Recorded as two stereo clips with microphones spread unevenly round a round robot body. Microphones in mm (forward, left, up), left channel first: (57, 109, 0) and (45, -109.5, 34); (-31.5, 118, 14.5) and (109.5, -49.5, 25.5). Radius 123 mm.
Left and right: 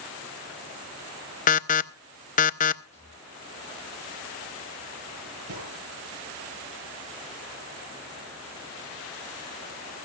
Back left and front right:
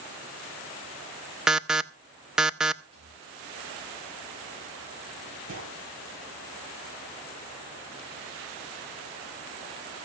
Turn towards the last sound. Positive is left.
turn(degrees=-90)